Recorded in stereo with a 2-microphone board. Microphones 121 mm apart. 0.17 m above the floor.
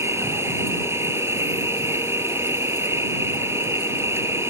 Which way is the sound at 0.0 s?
20° right (ahead or behind).